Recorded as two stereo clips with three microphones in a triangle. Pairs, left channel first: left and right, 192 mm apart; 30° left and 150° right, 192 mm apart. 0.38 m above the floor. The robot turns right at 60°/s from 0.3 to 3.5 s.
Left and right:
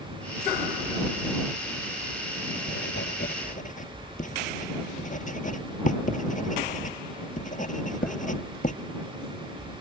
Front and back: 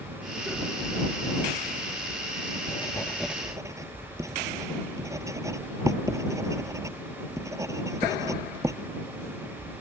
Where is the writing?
85° left; by 8.8 s 135° left.